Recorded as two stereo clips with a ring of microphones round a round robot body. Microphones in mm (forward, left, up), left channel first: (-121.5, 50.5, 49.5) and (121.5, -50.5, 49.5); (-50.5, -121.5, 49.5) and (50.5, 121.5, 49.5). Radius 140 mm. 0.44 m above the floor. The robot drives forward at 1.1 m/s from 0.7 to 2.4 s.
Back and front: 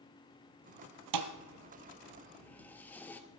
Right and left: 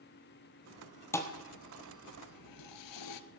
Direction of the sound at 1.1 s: 30° right.